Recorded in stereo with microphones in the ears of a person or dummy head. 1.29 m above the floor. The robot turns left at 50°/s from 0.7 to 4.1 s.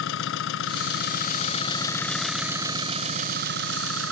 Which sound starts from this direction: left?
An engine running, at 0.0 s.